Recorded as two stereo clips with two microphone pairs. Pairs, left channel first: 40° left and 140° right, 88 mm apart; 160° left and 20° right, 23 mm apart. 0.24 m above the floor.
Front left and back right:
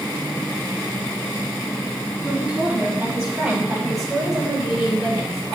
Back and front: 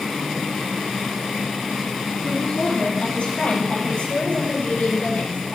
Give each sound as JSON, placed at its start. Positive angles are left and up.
{"t": 2.2, "sound": "a woman speaking", "azimuth_deg": 145, "distance_m": 6.5}